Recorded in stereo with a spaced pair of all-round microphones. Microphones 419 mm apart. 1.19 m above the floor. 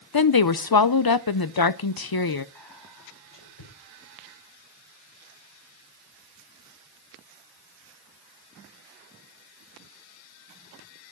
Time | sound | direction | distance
0.1 | a woman speaking | 55° left (ahead or behind) | 0.7 m
2.5 | whispering | 85° left | 4 m